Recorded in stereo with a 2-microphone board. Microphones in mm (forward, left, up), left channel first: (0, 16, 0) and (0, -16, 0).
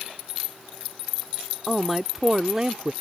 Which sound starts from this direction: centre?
A man speaking, at 1.7 s.